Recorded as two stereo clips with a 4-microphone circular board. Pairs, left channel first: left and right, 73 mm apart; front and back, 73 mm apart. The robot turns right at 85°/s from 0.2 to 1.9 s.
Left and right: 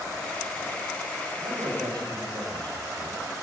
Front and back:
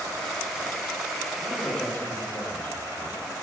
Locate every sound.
1.4 s a man speaking: 110° right, 5.5 m; by 3.2 s 65° right, 5.5 m